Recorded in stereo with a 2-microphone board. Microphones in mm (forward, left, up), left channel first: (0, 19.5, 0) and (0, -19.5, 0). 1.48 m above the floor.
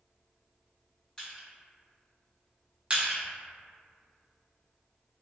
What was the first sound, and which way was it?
Crushing, 15° left (ahead or behind).